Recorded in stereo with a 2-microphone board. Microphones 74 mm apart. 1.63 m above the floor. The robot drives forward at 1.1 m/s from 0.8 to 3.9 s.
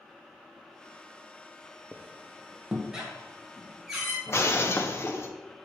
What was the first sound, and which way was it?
A squeak, 20° right (ahead or behind).